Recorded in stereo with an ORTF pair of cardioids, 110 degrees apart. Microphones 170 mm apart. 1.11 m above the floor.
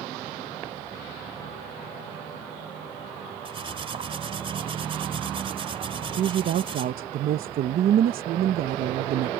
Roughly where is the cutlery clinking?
Ahead right.